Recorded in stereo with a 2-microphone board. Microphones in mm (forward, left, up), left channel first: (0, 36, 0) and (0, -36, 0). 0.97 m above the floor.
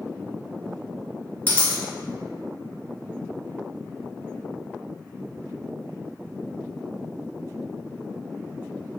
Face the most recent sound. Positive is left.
turn(degrees=25)  # may be behind; listen again after turning